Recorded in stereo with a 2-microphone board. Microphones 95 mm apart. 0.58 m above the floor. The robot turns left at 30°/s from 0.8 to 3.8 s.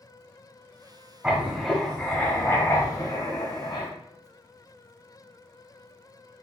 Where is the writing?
165° right, 1.1 m; by 3.9 s 120° left, 1.1 m.